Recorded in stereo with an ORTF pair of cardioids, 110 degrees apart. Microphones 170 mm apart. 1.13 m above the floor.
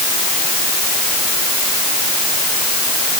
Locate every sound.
Only background noise.